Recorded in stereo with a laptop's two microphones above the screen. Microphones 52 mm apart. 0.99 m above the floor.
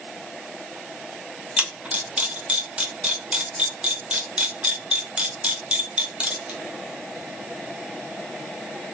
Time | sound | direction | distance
1.6 | a camera shutter | 20° right (ahead or behind) | 1.3 m